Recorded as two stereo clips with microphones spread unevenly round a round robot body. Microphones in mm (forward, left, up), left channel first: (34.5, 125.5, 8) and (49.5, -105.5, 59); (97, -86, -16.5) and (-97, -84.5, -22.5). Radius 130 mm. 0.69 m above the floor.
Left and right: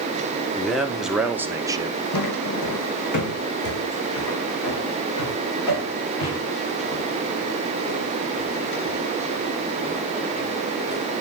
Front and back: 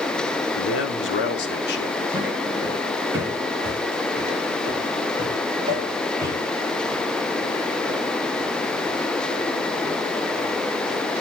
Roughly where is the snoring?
I don't hear snoring.